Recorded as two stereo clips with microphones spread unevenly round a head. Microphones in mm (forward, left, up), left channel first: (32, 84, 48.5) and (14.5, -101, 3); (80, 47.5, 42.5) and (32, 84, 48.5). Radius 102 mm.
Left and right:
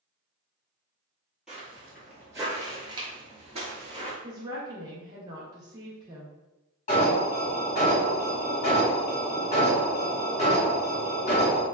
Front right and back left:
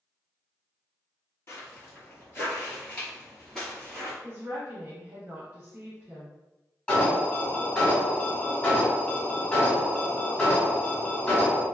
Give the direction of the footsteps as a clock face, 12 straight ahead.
12 o'clock.